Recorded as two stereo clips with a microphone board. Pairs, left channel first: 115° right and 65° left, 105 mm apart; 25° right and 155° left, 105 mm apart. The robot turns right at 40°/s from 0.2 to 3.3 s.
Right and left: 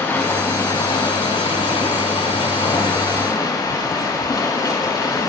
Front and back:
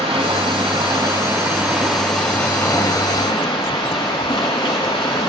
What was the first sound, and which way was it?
Running water, straight behind.